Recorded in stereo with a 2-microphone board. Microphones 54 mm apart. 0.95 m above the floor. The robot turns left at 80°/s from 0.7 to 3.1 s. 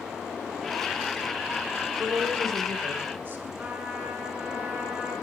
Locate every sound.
2.0 s a woman speaking: 50° right, 3 m; by 3.5 s 140° right, 3 m
3.6 s a trumpet: 30° right (ahead or behind), 7 m